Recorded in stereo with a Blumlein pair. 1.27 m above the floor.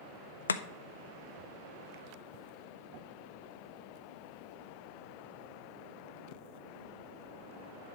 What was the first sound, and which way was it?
Chopping, 70° left.